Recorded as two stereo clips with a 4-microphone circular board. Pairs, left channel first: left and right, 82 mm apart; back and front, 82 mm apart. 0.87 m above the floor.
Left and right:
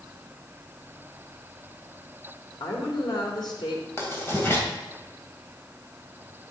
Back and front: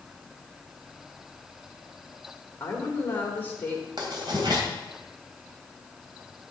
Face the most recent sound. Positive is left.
turn(degrees=30)